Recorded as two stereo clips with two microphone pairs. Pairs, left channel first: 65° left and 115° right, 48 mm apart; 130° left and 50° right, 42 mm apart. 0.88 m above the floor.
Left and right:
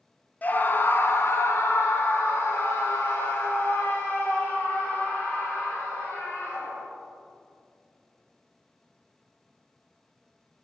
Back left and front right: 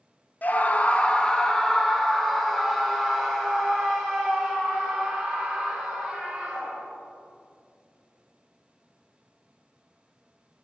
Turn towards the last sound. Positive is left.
turn(degrees=35)